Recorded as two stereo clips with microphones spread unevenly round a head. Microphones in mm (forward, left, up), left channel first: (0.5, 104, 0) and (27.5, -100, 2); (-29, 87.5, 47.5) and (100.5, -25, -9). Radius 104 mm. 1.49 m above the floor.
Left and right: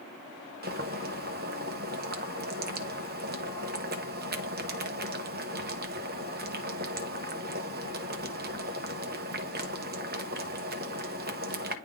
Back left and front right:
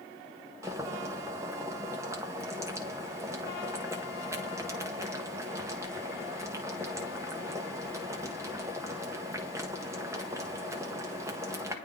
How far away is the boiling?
About 0.9 m.